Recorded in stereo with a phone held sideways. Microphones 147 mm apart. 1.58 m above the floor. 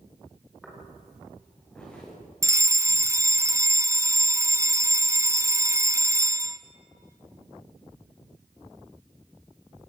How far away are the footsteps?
About 8.5 m.